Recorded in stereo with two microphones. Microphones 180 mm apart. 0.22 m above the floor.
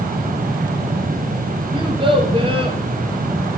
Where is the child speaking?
30° right (ahead or behind), 2.5 m.